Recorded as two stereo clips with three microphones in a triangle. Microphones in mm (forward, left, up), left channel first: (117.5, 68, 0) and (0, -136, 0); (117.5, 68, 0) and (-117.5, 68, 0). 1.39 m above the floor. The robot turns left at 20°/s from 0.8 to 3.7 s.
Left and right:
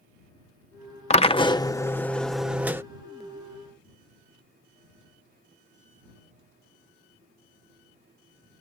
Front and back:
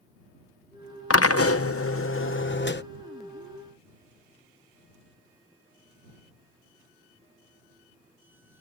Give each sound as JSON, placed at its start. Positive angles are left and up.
{"t": 1.1, "sound": "a drill", "azimuth_deg": -5}